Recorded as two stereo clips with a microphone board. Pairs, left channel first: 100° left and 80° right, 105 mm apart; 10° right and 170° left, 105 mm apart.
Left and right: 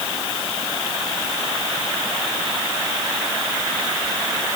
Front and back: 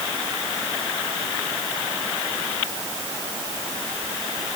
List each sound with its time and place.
Only background noise.